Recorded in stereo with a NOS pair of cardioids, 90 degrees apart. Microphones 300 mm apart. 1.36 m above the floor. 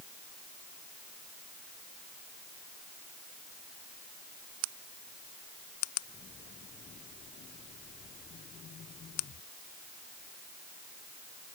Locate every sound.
Only background noise.